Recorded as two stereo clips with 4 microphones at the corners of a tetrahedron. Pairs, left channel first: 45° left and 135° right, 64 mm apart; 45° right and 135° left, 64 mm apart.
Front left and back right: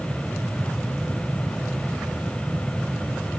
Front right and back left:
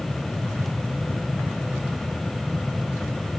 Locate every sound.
Only background noise.